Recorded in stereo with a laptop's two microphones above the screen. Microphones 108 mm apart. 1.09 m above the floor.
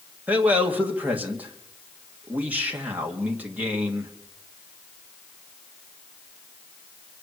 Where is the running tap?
No running tap in this recording.